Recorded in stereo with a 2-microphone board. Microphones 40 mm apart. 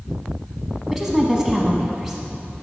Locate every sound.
0.9 s a woman speaking: 5° right (ahead or behind), 1.0 m